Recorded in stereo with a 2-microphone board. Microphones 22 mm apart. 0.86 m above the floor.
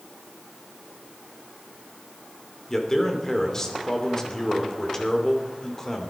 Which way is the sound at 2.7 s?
20° left (ahead or behind).